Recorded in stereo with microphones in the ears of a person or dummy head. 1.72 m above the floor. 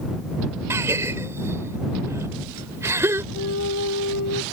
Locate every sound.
0.7 s a gasp: 15° right (ahead or behind)
3.3 s a flute: 70° left (ahead or behind)